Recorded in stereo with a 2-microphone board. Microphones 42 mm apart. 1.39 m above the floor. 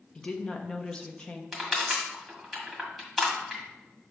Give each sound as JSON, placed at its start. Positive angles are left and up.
{"t": 0.1, "sound": "a woman speaking", "side_deg": 20, "distance_m": 0.9}
{"t": 1.5, "sound": "crushing", "side_deg": 0, "distance_m": 1.8}